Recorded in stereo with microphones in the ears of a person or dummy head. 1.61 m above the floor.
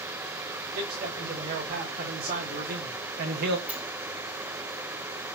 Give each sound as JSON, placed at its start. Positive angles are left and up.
{"t": 0.7, "sound": "a man speaking", "side_deg": -50, "distance_m": 2.5}
{"t": 3.7, "sound": "a sliding door", "side_deg": -10, "distance_m": 0.9}